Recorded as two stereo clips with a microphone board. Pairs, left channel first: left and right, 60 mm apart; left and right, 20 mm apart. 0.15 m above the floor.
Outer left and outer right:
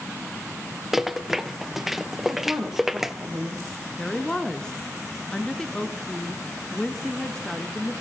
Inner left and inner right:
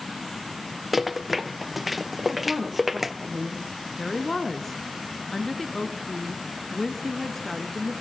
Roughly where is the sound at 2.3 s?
Centre.